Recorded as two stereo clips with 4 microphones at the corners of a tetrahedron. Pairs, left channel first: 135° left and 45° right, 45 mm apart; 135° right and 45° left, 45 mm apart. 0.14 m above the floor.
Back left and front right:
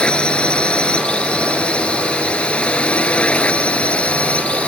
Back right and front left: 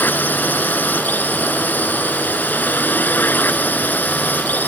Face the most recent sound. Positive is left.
turn(degrees=-170)